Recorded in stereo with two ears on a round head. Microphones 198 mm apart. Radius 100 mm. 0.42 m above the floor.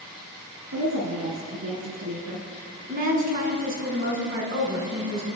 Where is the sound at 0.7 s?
80° right, 4 m.